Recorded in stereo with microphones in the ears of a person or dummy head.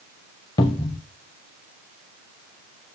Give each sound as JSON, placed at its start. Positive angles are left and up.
{"t": 0.6, "sound": "a cupboard door", "side_deg": 15, "distance_m": 0.6}